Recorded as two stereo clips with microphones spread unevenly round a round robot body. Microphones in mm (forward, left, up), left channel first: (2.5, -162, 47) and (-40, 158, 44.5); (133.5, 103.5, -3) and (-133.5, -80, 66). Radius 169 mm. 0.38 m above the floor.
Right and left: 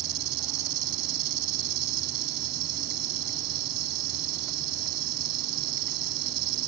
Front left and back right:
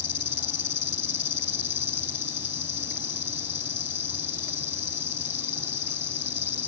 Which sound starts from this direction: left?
An insect, at 0.0 s.